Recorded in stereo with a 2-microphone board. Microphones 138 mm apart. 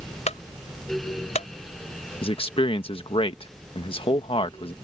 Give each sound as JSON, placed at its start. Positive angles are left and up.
{"t": 0.3, "sound": "a clunk", "side_deg": 60}
{"t": 2.2, "sound": "a man speaking", "side_deg": 45}